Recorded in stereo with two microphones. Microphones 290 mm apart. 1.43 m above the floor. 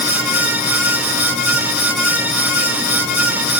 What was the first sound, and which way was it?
Only background noise.